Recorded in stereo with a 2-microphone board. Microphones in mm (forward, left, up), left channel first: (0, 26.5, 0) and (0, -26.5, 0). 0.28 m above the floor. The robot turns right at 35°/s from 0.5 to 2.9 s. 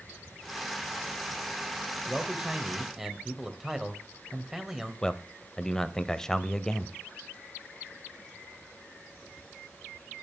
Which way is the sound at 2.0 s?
15° right (ahead or behind).